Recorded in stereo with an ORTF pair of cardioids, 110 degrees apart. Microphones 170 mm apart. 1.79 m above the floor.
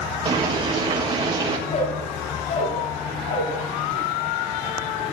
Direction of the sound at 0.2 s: 35° right.